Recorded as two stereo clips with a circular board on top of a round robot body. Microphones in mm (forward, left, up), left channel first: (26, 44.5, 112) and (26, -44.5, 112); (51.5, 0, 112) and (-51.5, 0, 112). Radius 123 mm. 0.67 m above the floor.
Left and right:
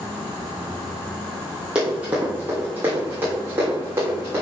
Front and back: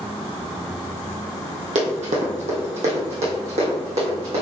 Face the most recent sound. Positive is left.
turn(degrees=-155)